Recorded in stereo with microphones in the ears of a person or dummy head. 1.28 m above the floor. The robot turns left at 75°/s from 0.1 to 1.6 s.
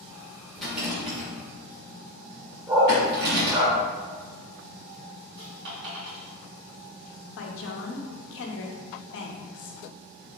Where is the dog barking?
20° right (ahead or behind), 1.1 m.